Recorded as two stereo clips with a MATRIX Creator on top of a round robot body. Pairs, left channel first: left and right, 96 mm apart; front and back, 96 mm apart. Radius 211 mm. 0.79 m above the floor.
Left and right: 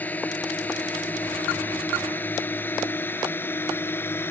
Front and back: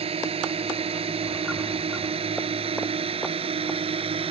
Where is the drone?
165° left; by 4.3 s 160° left.